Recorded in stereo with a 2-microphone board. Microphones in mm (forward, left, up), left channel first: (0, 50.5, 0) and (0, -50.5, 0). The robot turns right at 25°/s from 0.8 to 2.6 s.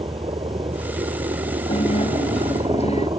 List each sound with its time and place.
0.0 s a helicopter: 110° right; by 3.2 s 65° right
1.7 s a guitar: 60° left (ahead or behind); by 3.1 s 85° left